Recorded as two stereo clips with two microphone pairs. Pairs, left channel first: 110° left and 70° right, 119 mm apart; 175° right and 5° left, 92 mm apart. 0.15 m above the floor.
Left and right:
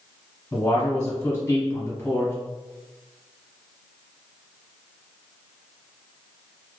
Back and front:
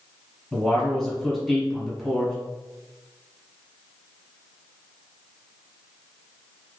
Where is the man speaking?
100° left, 1.1 m.